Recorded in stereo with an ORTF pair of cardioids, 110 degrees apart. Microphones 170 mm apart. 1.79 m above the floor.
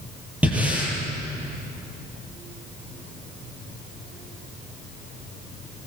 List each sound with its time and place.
0.4 s breathing: 10° right, 7.5 m